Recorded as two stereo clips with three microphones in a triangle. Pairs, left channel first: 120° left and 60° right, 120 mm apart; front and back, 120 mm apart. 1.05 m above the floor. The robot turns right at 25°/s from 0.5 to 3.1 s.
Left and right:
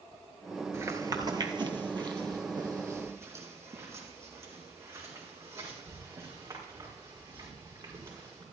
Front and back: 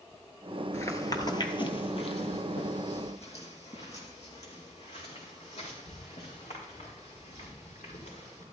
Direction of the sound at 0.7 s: 25° right.